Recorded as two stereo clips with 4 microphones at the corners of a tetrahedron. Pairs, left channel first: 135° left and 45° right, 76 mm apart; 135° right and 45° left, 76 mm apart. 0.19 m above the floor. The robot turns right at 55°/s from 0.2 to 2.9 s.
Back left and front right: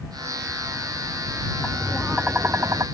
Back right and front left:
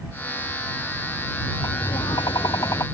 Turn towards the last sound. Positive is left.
turn(degrees=-85)